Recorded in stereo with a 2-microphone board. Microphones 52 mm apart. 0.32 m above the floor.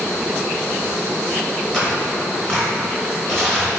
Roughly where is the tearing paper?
Centre.